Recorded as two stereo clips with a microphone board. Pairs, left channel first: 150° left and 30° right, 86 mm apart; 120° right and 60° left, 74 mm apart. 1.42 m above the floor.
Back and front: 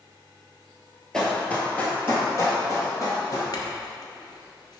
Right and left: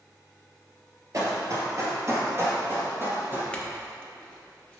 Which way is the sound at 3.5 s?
165° left.